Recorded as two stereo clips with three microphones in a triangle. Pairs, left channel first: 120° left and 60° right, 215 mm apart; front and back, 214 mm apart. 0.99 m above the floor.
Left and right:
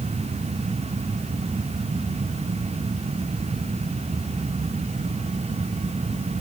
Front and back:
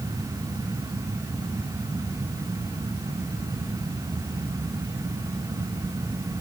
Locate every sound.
Only background noise.